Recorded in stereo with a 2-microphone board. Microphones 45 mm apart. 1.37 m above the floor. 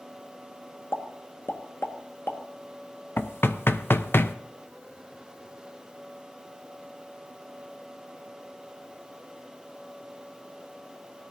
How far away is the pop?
About 1.5 m.